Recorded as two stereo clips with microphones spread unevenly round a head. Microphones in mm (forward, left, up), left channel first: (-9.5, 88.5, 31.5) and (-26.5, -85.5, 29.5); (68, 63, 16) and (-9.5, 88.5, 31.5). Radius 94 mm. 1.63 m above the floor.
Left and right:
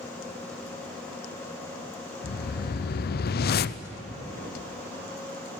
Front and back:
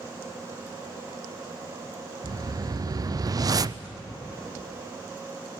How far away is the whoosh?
About 0.5 m.